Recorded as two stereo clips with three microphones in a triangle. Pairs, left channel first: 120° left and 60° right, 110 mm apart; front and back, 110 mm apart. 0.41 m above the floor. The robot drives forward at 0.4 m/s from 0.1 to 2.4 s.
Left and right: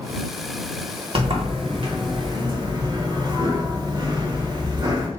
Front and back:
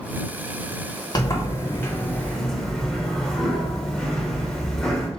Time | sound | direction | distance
1.1 | a sliding door | 45° right | 1.1 m